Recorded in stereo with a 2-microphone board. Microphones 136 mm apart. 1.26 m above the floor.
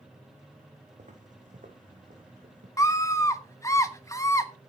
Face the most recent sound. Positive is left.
turn(degrees=20)  # may be behind; listen again after turning